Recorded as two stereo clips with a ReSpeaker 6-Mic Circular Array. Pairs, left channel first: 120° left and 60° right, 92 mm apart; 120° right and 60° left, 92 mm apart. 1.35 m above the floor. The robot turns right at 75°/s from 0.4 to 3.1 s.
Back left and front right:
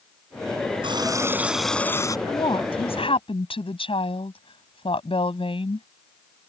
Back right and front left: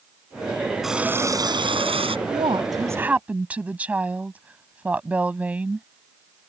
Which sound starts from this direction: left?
A woman speaking, at 2.3 s.